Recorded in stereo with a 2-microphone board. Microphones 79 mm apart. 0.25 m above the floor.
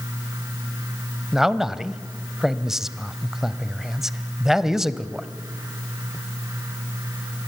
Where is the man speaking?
5° right (ahead or behind), 1.0 m.